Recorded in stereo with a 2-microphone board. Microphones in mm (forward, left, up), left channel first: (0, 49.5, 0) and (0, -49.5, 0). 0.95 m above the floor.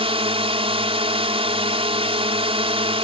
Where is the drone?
65° right (ahead or behind).